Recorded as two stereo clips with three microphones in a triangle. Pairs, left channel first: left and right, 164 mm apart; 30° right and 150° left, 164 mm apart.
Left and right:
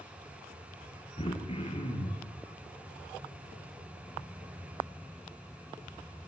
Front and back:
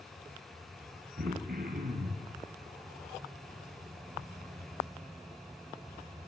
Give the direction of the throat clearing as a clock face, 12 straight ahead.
7 o'clock.